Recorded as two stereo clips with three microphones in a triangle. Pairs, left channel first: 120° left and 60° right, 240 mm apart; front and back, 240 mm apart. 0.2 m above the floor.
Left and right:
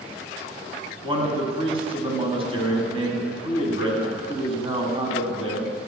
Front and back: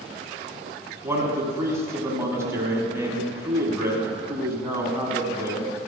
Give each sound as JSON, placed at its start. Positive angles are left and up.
{"t": 1.0, "sound": "a man speaking", "azimuth_deg": -110, "distance_m": 1.7}